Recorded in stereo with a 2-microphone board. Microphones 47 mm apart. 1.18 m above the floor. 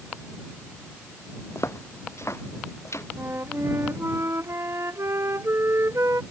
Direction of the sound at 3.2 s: 70° right (ahead or behind).